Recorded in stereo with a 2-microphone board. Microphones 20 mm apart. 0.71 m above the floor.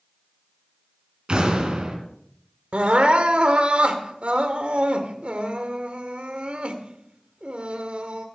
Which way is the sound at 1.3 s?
45° right (ahead or behind).